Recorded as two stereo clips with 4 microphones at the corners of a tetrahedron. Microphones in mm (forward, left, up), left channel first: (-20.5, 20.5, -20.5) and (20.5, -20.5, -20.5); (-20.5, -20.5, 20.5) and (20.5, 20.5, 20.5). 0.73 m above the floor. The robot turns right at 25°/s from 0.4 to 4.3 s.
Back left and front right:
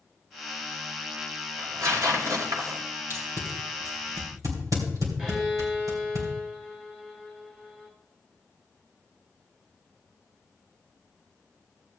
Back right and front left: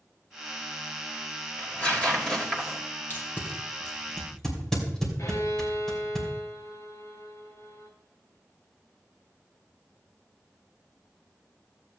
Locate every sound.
1.6 s tearing paper: 80° right, 2.5 m; by 2.8 s 50° right, 2.5 m
3.1 s tape being pulled: 85° right, 3 m; by 6.2 s 55° right, 3 m
5.2 s a violin: 120° right, 4.5 m